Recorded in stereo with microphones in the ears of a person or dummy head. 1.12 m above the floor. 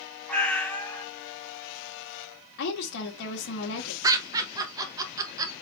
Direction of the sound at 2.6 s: 70° left (ahead or behind).